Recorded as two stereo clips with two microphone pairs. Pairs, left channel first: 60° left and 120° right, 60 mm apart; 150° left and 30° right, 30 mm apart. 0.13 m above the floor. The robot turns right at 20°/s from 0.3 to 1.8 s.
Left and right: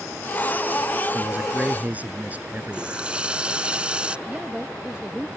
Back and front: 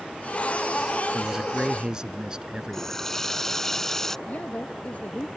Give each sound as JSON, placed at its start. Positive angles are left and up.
{"t": 1.1, "sound": "a man speaking", "azimuth_deg": -85}
{"t": 2.7, "sound": "a running tap", "azimuth_deg": -155}
{"t": 4.3, "sound": "a woman speaking", "azimuth_deg": 170}